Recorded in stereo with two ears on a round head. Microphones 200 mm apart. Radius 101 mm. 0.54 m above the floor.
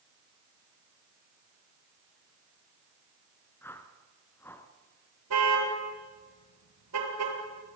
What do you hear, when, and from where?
3.6 s a whoosh: 10° left (ahead or behind), 1.9 m
5.3 s a car horn: 80° right, 5.5 m